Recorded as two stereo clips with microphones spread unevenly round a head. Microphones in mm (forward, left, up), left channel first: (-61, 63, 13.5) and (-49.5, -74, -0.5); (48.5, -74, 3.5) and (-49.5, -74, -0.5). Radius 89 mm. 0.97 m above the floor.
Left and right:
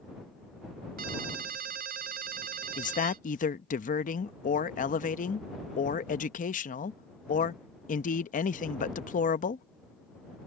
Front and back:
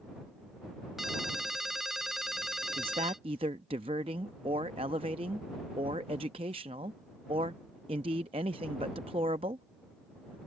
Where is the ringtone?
95° right.